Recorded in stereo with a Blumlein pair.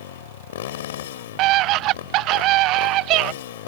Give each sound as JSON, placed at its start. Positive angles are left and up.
{"t": 0.0, "sound": "a motorcycle", "azimuth_deg": 55}
{"t": 1.4, "sound": "a scream", "azimuth_deg": -40}